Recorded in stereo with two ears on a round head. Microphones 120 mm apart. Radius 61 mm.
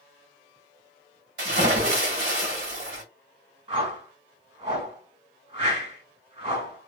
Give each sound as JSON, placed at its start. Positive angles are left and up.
{"t": 1.4, "sound": "a splash", "side_deg": -80, "distance_m": 1.8}
{"t": 3.7, "sound": "a whoosh", "side_deg": -40, "distance_m": 1.6}